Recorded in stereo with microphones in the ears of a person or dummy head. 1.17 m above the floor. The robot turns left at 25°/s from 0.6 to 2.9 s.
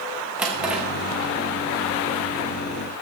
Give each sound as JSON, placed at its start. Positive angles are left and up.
{"t": 0.4, "sound": "a drawer", "side_deg": -10, "distance_m": 0.6}